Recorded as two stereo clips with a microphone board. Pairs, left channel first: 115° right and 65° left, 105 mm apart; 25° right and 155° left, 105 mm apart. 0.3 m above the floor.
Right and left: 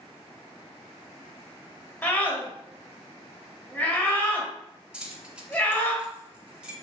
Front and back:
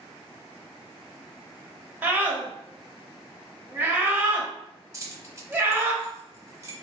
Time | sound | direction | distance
2.0 | a scream | 165° right | 0.9 m
4.9 | keys jangling | 140° left | 0.7 m